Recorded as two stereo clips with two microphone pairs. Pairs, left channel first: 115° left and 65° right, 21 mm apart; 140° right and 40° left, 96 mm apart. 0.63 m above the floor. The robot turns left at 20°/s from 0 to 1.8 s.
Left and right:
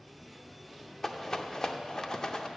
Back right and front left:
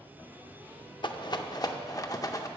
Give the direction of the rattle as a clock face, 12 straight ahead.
6 o'clock.